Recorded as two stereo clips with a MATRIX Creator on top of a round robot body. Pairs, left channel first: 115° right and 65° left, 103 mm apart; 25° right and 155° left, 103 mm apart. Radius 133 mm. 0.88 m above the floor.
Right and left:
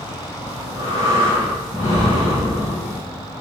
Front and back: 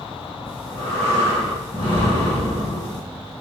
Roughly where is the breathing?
Ahead.